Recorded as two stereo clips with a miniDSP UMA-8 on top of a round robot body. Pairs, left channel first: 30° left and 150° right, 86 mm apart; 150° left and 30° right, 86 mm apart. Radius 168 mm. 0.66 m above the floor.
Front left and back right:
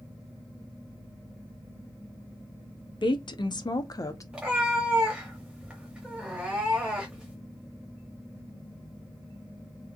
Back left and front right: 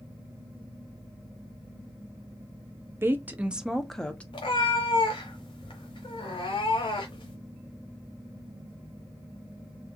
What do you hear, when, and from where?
3.0 s a woman speaking: 30° left, 1.0 m; by 4.2 s 75° left, 1.0 m
4.3 s a cat meowing: 130° left, 0.8 m